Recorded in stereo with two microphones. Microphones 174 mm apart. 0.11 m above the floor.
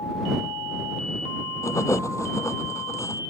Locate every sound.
1.6 s writing: 15° left (ahead or behind)